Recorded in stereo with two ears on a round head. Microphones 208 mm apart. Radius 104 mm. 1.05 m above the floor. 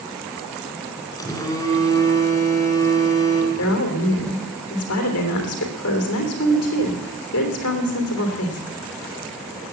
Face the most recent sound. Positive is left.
turn(degrees=70)  # may be behind; listen again after turning